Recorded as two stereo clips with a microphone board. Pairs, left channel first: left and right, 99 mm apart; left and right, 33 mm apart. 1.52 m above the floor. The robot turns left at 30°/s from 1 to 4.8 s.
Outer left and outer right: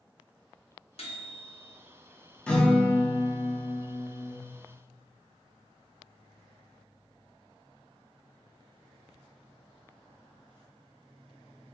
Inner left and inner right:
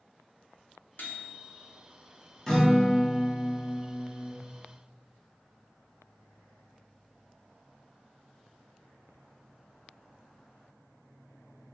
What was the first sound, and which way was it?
A microwave, 75° left (ahead or behind).